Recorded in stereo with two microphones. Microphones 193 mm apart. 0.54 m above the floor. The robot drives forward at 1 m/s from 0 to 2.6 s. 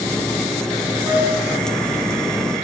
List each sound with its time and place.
1.0 s a flute: 20° right (ahead or behind), 6 m